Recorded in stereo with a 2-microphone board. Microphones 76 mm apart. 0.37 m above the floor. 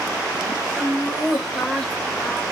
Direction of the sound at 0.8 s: 10° right (ahead or behind).